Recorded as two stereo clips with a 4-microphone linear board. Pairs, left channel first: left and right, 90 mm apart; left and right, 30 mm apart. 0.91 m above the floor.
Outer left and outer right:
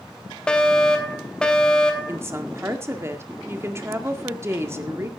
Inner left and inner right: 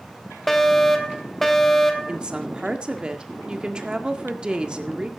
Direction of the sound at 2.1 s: 30° right (ahead or behind).